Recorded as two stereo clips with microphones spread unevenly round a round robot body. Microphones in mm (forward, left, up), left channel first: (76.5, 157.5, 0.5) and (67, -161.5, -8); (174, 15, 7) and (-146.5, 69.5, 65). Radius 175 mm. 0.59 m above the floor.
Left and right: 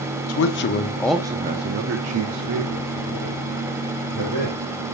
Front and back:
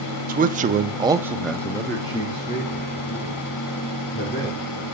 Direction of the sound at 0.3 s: 105° left.